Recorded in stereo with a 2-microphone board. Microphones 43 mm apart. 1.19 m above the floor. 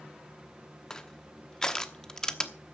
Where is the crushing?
15° left (ahead or behind), 1.0 m.